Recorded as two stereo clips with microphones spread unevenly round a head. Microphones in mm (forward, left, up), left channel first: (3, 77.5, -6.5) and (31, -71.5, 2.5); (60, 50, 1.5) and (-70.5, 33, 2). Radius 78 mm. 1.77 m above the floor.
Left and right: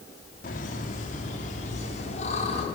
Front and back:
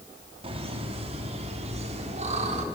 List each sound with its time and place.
0.4 s laughter: 145° left, 4.5 m; by 2.6 s 155° left, 6 m